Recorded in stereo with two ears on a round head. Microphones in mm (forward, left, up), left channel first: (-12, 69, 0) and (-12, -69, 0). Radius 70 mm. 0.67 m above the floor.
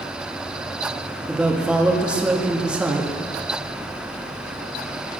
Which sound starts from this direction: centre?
A woman speaking, at 1.3 s.